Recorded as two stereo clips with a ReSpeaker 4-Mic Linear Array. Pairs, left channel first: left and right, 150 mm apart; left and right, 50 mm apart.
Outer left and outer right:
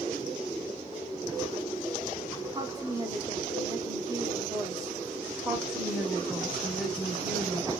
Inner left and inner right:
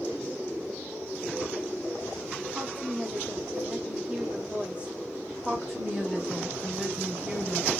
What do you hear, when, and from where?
2.5 s a woman speaking: 25° right (ahead or behind), 0.8 m
5.4 s a woman speaking: centre (ahead or behind), 1.1 m